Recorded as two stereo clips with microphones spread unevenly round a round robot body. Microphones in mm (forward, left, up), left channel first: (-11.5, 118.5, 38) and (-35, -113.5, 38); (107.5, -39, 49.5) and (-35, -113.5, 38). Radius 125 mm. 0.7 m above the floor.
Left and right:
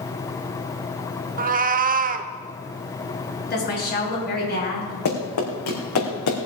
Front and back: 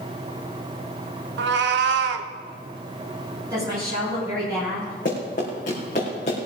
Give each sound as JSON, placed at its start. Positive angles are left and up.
{"t": 1.4, "sound": "a cat meowing", "azimuth_deg": -150, "distance_m": 0.7}
{"t": 3.5, "sound": "a woman speaking", "azimuth_deg": 135, "distance_m": 8.0}
{"t": 5.0, "sound": "running footsteps", "azimuth_deg": 85, "distance_m": 4.0}